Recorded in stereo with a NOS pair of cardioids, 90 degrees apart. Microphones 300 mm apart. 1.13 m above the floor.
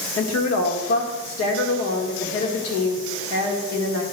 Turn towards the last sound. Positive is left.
turn(degrees=60)